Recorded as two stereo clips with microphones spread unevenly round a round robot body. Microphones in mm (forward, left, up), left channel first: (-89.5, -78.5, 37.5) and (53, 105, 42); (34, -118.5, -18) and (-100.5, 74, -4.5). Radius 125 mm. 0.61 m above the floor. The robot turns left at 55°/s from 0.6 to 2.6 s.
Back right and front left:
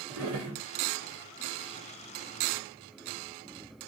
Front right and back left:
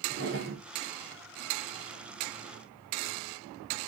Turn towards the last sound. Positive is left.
turn(degrees=-30)